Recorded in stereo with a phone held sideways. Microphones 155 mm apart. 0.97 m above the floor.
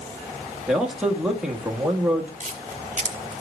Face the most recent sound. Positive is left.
turn(degrees=-50)  # may be behind; listen again after turning